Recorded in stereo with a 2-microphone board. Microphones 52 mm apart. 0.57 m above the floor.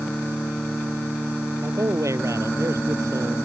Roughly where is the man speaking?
Right.